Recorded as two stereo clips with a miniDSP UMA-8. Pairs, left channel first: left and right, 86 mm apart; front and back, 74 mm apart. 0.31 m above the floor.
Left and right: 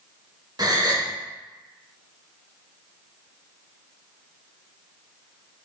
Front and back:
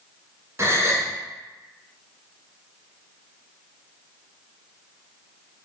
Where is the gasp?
130° right, 0.8 m.